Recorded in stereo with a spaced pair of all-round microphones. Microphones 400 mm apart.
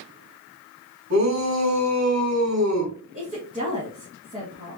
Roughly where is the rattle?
I don't hear a rattle.